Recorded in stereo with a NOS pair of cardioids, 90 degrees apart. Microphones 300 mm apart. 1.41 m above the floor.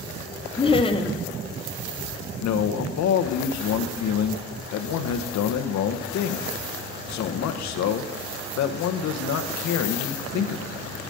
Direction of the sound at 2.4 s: 65° left.